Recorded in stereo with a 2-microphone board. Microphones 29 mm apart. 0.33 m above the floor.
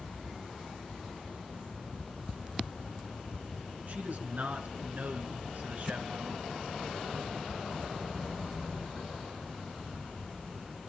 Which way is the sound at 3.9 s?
55° right (ahead or behind).